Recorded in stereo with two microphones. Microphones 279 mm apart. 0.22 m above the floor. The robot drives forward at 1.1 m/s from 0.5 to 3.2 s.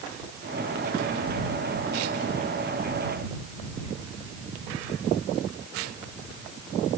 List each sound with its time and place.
Only background noise.